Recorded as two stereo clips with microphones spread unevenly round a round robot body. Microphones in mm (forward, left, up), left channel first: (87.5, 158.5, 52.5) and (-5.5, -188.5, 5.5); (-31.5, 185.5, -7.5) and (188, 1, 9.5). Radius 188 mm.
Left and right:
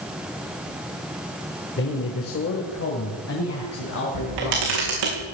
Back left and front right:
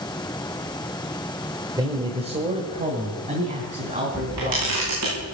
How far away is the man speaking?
About 1.4 m.